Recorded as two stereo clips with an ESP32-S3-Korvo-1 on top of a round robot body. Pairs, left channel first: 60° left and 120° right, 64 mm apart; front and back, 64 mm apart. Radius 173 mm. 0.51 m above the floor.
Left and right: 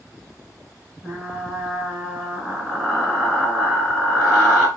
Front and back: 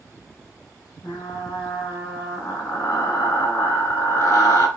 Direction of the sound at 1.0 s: 30° right.